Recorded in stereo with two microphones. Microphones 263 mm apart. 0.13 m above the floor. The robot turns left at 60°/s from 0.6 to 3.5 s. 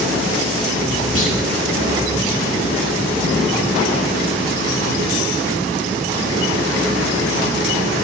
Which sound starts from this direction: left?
A clunk, at 1.1 s.